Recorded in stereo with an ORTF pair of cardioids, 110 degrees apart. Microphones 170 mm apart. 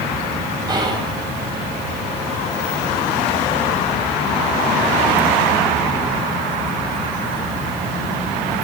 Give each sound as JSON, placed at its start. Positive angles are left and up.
{"t": 0.7, "sound": "whispering", "azimuth_deg": -25, "distance_m": 2.5}